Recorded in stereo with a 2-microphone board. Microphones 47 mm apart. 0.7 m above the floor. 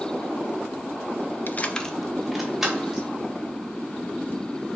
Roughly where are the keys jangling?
Left.